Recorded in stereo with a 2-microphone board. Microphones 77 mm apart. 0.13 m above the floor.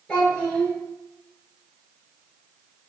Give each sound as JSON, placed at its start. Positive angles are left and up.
{"t": 0.1, "sound": "a child speaking", "side_deg": 10, "distance_m": 1.4}